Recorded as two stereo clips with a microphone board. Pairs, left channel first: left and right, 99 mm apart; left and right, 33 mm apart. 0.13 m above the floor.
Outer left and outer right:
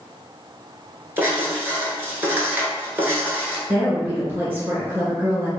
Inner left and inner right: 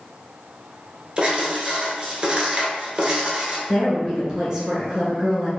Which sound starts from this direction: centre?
A woman speaking, at 3.7 s.